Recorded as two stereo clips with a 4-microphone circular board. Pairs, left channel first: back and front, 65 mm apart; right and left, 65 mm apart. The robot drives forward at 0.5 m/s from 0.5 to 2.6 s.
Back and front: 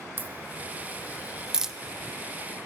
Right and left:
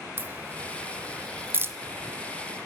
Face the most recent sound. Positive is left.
turn(degrees=110)